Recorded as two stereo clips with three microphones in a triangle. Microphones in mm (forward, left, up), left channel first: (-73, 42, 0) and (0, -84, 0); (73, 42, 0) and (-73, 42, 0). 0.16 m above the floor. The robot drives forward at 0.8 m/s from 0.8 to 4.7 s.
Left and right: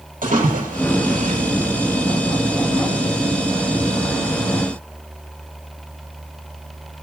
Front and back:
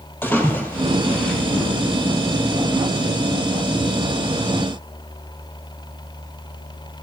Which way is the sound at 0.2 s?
75° right.